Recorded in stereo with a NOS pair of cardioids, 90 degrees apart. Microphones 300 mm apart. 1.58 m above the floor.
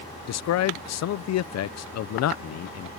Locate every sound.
0.3 s a man speaking: 60° left